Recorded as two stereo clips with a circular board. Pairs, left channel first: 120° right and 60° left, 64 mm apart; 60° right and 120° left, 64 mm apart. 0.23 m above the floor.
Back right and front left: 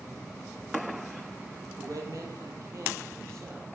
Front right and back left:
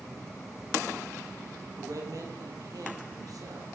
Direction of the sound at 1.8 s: 90° left.